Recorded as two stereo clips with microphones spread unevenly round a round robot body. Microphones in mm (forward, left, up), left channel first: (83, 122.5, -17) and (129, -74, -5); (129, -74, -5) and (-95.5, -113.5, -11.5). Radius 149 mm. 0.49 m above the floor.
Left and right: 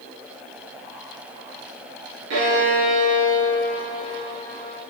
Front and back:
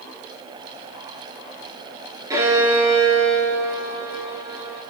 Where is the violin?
95° right, 4.5 m.